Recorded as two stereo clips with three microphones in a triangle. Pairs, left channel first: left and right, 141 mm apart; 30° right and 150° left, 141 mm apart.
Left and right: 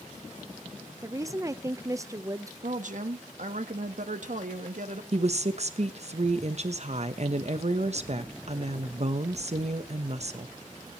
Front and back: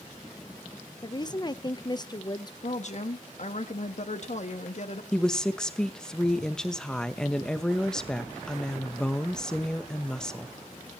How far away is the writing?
No writing in this recording.